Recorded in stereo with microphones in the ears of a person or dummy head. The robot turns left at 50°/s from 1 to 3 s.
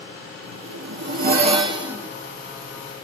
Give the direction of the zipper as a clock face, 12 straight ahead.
4 o'clock.